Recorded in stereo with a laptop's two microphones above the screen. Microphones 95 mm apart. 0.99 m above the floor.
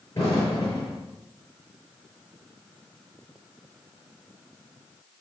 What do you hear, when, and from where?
0.1 s an explosion: 30° left (ahead or behind), 7.5 m